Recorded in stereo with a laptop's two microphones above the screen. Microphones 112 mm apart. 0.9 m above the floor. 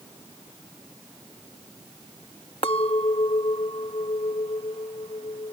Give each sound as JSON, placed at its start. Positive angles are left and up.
{"t": 2.6, "sound": "a clink", "side_deg": 55}